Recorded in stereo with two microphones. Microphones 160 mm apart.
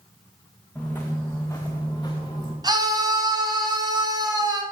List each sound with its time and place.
0.8 s footsteps: 10° left (ahead or behind), 2.5 m; by 2.5 s 25° left (ahead or behind), 3 m
2.6 s a scream: 25° right (ahead or behind), 2.5 m